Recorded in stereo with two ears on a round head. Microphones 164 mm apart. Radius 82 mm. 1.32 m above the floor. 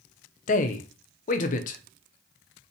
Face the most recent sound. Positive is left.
turn(degrees=45)  # may be behind; listen again after turning